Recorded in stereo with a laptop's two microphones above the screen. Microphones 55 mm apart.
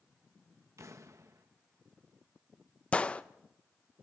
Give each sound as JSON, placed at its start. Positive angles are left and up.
{"t": 0.8, "sound": "an explosion", "side_deg": -65, "distance_m": 1.1}
{"t": 2.9, "sound": "a gunshot", "side_deg": 20, "distance_m": 0.7}